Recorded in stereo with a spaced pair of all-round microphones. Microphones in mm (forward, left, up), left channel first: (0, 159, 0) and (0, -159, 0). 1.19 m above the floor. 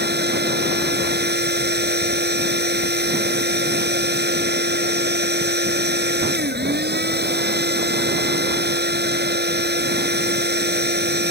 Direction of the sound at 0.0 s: 30° right (ahead or behind).